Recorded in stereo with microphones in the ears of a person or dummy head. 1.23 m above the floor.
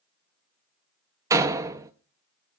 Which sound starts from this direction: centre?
A door slam, at 1.3 s.